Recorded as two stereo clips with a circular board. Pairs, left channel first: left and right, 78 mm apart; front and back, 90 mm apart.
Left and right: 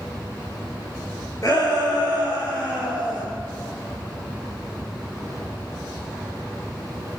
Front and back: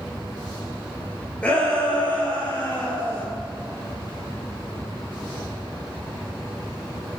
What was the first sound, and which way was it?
A shout, 75° left.